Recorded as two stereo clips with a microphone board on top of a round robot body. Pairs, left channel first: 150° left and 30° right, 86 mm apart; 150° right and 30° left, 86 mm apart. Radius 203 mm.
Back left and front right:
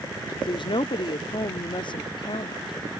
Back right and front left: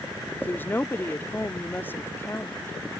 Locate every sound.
0.4 s a woman speaking: 145° left